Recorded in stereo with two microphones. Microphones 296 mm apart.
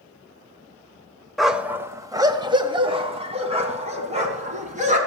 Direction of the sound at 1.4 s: Centre (ahead or behind).